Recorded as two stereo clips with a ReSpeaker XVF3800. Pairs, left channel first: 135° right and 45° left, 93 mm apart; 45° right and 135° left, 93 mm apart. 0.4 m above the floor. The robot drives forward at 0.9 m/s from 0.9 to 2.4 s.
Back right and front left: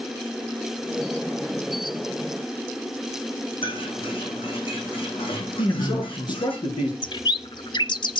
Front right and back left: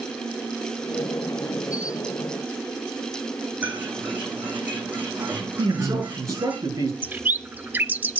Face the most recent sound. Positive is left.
turn(degrees=-155)